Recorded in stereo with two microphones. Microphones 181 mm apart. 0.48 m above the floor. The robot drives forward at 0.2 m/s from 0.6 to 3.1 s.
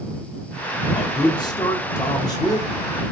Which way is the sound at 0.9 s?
25° left (ahead or behind).